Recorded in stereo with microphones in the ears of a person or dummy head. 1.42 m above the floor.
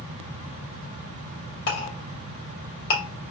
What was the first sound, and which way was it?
A clink, 65° left (ahead or behind).